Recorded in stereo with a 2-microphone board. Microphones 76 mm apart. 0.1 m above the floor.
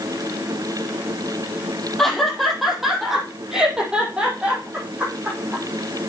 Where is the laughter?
5° left (ahead or behind), 4 m; by 5.6 s 20° right (ahead or behind), 5.5 m.